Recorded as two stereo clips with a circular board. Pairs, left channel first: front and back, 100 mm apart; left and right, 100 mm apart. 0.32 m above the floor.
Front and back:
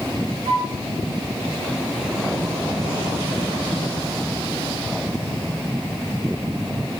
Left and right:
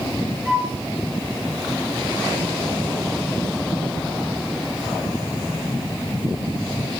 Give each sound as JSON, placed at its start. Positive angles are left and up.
{"t": 0.5, "sound": "a flute", "azimuth_deg": -175, "distance_m": 6.0}